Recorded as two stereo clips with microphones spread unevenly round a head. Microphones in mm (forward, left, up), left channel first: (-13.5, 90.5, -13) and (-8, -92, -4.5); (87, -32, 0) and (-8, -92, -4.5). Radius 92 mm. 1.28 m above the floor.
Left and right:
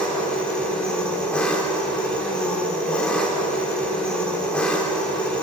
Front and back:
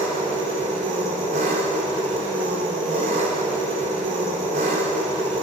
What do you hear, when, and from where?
0.0 s an engine running: 175° left, 4 m